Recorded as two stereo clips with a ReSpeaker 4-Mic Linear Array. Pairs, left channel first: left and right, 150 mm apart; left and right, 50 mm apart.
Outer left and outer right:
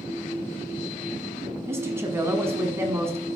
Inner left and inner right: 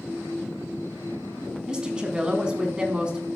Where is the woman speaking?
15° right (ahead or behind), 1.5 m.